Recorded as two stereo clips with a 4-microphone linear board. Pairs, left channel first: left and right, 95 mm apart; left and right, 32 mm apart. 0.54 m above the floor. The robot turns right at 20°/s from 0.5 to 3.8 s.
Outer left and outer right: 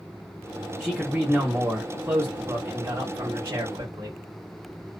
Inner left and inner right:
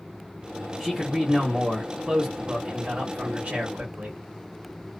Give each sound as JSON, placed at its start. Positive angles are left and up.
{"t": 0.8, "sound": "a man speaking", "azimuth_deg": 180, "distance_m": 0.9}